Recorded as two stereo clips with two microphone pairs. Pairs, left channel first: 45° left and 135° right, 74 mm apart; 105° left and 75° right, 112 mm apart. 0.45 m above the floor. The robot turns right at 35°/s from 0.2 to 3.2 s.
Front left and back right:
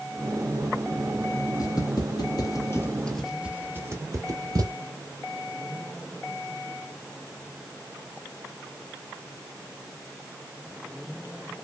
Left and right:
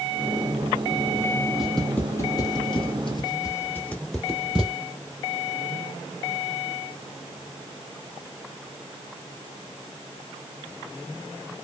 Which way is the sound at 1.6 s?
10° left.